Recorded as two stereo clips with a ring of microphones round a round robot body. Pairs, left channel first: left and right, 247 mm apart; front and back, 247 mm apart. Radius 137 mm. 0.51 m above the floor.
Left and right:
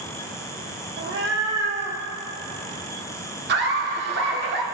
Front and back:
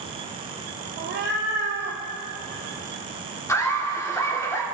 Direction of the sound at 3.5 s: 75° right.